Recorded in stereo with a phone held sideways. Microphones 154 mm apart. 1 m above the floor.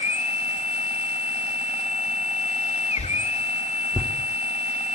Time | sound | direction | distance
0.0 | a machine running | 45° left (ahead or behind) | 2.5 m
3.0 | a whoosh | 10° left (ahead or behind) | 3 m